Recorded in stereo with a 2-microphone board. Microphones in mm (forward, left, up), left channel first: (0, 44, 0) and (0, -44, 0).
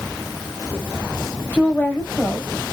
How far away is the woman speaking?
About 1.0 m.